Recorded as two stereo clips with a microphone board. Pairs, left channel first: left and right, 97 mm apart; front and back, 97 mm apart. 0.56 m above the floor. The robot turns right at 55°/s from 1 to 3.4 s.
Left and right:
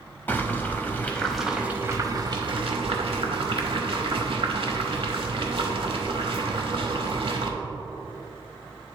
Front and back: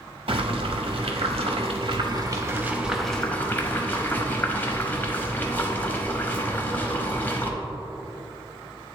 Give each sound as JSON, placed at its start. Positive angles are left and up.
{"t": 0.3, "sound": "boiling", "azimuth_deg": 160, "distance_m": 0.8}